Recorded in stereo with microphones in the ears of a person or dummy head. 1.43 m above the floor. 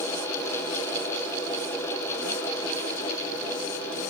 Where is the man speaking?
I don't hear a man speaking.